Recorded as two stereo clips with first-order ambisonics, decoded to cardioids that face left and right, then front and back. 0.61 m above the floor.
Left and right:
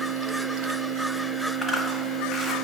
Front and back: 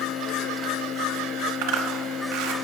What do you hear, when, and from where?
1.6 s a zipper: straight behind, 1.3 m